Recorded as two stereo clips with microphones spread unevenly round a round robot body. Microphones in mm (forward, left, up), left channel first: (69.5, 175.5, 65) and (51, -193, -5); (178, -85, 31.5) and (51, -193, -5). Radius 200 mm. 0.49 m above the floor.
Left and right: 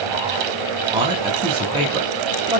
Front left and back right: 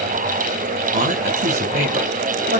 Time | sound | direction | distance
0.9 | a man speaking | 165° right | 4 m